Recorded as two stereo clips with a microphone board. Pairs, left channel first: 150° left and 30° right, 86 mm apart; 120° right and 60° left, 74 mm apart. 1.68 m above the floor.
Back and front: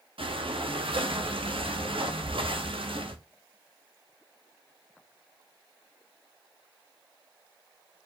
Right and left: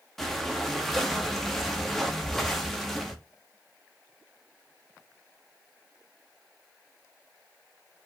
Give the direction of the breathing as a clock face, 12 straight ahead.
1 o'clock.